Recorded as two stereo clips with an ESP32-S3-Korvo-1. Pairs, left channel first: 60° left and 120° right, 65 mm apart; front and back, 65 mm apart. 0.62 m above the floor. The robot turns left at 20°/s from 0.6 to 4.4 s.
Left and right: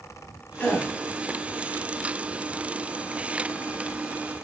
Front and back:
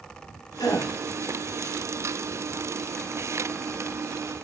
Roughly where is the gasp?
Ahead.